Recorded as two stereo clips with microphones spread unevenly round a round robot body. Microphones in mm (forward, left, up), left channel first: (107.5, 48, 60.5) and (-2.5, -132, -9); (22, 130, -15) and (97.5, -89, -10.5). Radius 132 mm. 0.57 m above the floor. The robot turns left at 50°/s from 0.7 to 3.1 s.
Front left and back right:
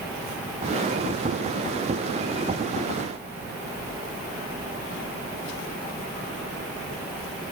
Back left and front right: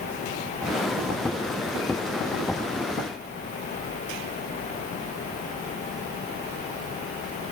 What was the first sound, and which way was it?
Only background noise.